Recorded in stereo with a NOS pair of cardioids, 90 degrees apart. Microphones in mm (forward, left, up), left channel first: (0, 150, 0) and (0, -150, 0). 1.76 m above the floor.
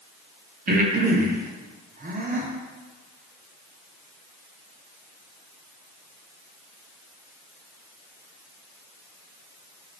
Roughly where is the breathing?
Ahead right.